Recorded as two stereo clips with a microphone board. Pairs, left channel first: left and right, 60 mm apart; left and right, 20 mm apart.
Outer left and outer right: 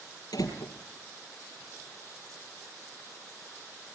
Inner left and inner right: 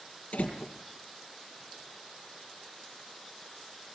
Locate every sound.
0.3 s a door slam: 80° left, 4 m